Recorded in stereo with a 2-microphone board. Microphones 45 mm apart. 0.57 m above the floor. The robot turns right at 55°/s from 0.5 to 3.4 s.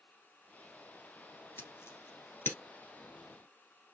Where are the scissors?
65° left (ahead or behind), 1.4 m; by 2.6 s 55° left (ahead or behind), 1.4 m.